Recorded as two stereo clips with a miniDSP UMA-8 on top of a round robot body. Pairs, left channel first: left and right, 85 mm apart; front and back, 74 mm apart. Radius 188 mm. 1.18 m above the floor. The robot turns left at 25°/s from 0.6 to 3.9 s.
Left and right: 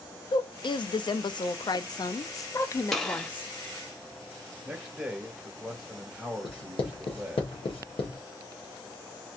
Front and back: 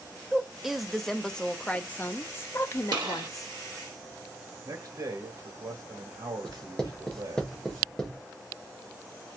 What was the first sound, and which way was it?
A woman speaking, 95° left.